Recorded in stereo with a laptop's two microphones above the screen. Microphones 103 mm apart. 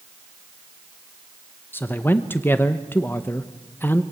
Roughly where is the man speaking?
Left.